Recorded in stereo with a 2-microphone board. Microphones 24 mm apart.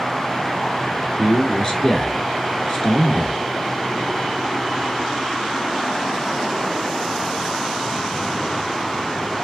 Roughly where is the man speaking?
Left.